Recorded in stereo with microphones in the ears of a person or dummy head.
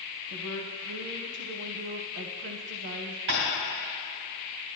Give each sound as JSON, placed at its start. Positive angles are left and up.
{"t": 0.3, "sound": "a woman speaking", "side_deg": -60, "distance_m": 0.7}
{"t": 3.3, "sound": "tapping", "side_deg": -65, "distance_m": 2.5}